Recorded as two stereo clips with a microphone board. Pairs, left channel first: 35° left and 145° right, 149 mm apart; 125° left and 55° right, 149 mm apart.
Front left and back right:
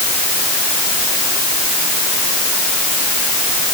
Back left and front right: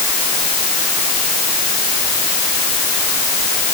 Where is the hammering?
No hammering in this recording.